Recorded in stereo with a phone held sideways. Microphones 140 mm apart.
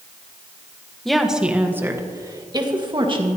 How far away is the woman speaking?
About 1.2 m.